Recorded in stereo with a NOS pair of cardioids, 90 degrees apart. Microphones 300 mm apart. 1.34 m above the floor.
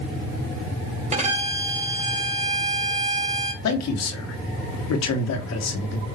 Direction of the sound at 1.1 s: 20° right.